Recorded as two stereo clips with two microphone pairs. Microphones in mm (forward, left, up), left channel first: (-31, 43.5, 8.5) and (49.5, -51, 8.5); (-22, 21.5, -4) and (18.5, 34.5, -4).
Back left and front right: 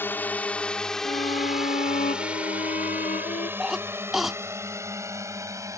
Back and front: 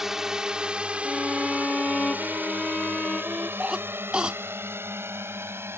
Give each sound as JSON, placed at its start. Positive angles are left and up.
{"t": 0.0, "sound": "a drone", "azimuth_deg": 85}
{"t": 1.1, "sound": "a violin", "azimuth_deg": 125}
{"t": 3.6, "sound": "a cough", "azimuth_deg": 35}